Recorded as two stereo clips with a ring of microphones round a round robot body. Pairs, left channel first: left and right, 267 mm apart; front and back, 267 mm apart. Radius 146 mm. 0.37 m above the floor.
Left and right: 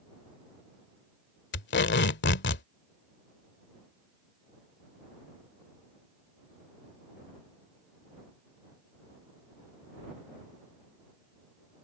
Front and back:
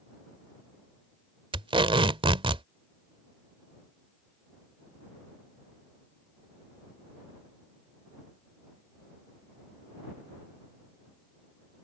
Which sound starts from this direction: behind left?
Tape being pulled, at 1.5 s.